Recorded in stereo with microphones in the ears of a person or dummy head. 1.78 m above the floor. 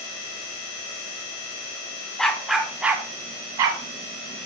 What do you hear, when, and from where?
2.2 s a dog barking: centre (ahead or behind), 1.6 m; by 3.8 s 25° right (ahead or behind), 1.5 m